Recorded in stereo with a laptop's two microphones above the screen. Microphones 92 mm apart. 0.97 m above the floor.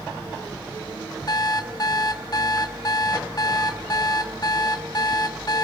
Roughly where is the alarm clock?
Left.